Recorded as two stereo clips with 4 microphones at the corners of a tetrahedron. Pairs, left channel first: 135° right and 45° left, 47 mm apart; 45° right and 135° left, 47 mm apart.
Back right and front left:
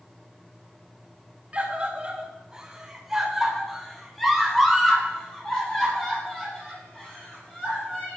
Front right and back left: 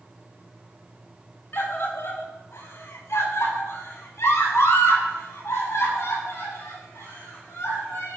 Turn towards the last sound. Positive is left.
turn(degrees=-65)